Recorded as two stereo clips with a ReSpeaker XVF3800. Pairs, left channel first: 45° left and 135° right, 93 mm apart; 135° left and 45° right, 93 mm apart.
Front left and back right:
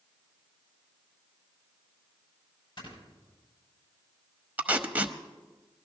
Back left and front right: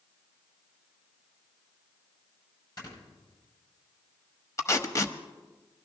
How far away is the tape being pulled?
About 0.9 m.